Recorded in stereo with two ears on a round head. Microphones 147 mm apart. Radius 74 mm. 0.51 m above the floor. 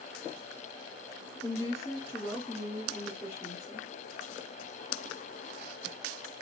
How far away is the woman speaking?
About 1.5 m.